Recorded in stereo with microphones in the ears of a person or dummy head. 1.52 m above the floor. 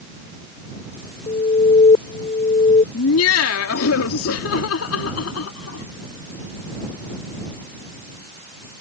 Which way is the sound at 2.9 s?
85° left.